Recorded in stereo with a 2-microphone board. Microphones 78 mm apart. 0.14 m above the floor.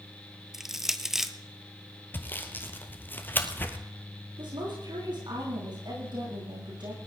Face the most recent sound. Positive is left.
turn(degrees=-80)